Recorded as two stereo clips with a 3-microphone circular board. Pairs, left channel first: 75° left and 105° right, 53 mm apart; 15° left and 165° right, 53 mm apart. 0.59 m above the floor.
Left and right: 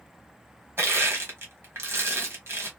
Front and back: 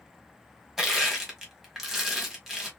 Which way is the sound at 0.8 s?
80° right.